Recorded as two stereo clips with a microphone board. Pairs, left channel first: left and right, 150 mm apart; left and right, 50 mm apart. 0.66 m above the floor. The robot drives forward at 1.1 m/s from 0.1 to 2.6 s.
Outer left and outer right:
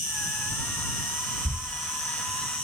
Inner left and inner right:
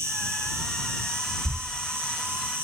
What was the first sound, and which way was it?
An insect, 80° right.